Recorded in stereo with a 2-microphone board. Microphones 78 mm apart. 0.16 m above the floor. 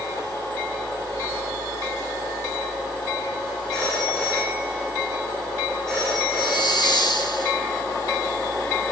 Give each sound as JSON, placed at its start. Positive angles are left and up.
{"t": 3.7, "sound": "a phone ringing", "side_deg": 10, "distance_m": 6.5}
{"t": 6.4, "sound": "a hiss", "side_deg": 65, "distance_m": 2.5}